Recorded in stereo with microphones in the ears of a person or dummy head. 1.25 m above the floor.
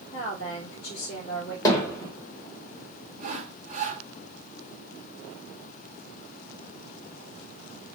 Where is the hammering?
20° left (ahead or behind), 1.0 m.